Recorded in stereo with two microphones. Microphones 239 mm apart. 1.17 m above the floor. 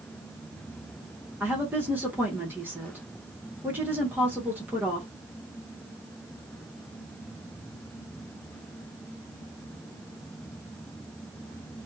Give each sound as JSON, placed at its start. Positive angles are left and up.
{"t": 1.4, "sound": "a woman speaking", "side_deg": -10, "distance_m": 1.0}